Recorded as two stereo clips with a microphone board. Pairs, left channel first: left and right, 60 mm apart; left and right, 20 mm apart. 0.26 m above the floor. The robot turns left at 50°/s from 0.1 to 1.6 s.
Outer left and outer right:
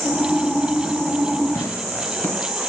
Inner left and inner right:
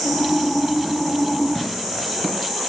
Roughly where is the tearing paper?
Left.